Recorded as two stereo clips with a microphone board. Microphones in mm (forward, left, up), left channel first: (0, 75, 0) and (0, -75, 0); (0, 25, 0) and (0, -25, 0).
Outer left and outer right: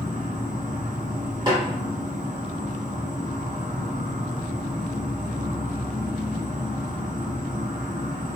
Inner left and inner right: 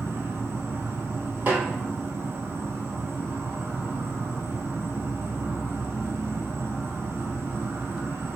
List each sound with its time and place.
0.0 s an insect: 50° right (ahead or behind), 0.9 m
1.5 s a snare drum: 30° right (ahead or behind), 1.5 m